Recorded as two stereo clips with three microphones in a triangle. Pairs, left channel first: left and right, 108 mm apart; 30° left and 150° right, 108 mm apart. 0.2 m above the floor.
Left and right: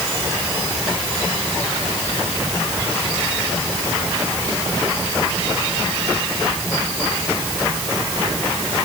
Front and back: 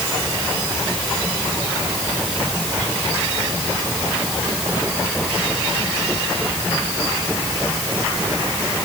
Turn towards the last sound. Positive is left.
No sound to turn to.